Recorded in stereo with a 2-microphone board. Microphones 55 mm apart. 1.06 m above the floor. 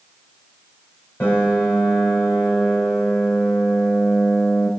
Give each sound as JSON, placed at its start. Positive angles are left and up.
{"t": 1.2, "sound": "a piano", "side_deg": 35, "distance_m": 5.0}